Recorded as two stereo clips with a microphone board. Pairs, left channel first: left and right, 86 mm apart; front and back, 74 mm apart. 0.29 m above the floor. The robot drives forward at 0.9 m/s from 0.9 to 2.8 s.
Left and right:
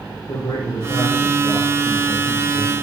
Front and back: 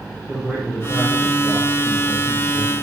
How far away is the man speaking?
About 8.5 m.